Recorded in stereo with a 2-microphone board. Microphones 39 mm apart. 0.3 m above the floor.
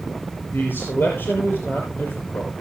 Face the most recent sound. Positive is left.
turn(degrees=60)  # may be behind; listen again after turning